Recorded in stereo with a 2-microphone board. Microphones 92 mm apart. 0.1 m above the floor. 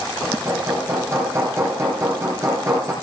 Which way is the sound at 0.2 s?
30° right (ahead or behind).